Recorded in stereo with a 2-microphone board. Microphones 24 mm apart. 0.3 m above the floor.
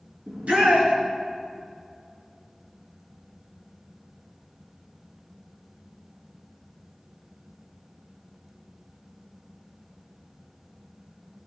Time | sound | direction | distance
0.3 | a shout | 75° right (ahead or behind) | 3.5 m